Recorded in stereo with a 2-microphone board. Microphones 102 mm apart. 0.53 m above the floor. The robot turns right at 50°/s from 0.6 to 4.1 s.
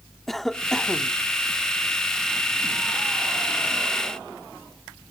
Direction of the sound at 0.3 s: Centre (ahead or behind).